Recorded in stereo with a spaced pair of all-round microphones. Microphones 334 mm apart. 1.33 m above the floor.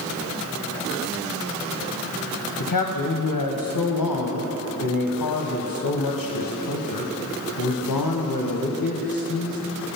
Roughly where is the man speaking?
Left.